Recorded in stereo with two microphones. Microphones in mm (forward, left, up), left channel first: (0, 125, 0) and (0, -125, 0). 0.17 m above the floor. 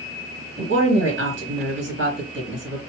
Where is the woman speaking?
50° right (ahead or behind), 2 m.